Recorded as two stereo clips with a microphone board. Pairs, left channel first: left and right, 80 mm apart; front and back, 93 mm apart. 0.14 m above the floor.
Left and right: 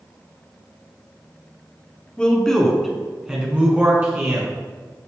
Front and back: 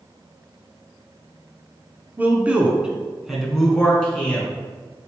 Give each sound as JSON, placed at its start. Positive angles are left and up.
{"t": 2.2, "sound": "a man speaking", "azimuth_deg": 150, "distance_m": 1.3}